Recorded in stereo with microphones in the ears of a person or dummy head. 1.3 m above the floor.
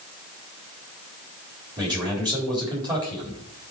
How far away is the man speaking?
About 4 m.